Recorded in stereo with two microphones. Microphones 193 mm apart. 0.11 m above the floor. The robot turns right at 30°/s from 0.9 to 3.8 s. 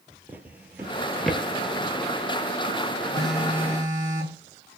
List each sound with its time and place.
0.3 s a drawer: 10° right (ahead or behind), 0.6 m; by 1.4 s 5° left (ahead or behind), 0.6 m
3.1 s a phone buzzing: 5° left (ahead or behind), 1.7 m; by 4.8 s 15° right (ahead or behind), 1.7 m